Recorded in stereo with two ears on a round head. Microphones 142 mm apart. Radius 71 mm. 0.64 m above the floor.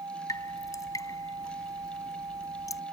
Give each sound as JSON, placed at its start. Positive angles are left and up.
{"t": 0.3, "sound": "dripping", "side_deg": 25}